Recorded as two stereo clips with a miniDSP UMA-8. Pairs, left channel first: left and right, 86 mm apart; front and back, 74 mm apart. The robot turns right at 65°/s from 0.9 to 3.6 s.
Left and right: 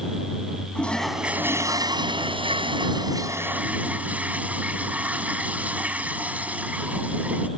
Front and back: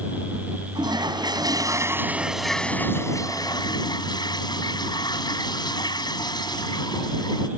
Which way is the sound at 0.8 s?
170° left.